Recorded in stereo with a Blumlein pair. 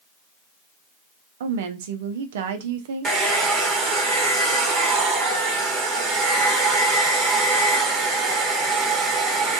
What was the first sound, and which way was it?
A woman speaking, 55° right.